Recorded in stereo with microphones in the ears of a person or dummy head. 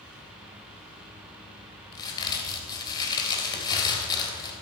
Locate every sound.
1.9 s a crack: 25° left (ahead or behind), 3.5 m